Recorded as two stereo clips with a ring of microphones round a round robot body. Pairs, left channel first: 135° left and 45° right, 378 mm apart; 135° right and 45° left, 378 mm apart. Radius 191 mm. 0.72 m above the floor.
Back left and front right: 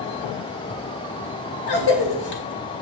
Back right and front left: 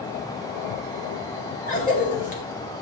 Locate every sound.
1.7 s a cough: 155° left, 2.5 m